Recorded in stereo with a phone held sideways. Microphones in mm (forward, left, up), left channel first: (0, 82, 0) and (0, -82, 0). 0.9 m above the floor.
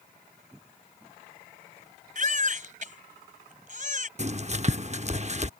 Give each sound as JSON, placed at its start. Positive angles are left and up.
{"t": 2.1, "sound": "a baby crying", "side_deg": -50}
{"t": 4.2, "sound": "writing", "side_deg": -45}